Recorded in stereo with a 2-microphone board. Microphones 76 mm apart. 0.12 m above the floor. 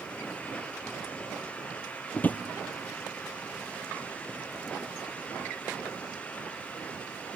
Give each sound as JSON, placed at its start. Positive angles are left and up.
{"t": 2.1, "sound": "a drawer", "side_deg": 25, "distance_m": 1.0}